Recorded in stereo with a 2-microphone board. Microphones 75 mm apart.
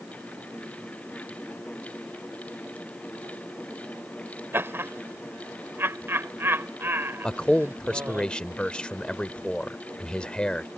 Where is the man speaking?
10° left (ahead or behind).